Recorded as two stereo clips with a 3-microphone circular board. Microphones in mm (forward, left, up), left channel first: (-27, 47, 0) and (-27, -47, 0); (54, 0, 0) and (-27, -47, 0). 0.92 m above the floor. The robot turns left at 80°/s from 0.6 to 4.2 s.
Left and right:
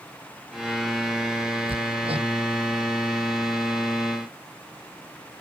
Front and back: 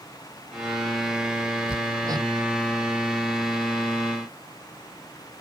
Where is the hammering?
70° right; by 2.3 s 120° right.